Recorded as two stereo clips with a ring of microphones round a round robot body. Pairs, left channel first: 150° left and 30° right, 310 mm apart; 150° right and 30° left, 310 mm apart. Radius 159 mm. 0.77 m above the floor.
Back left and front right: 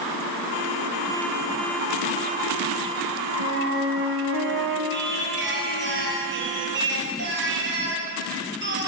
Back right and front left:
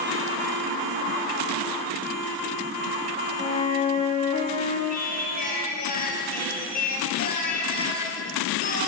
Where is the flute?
80° right, 2.5 m.